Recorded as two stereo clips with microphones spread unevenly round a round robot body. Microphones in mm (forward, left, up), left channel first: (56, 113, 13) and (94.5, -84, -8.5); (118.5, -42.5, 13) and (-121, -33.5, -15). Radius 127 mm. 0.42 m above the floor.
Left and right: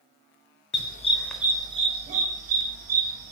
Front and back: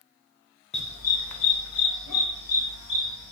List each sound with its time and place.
0.7 s a dog barking: 65° left, 0.6 m; by 3.3 s 40° right, 2 m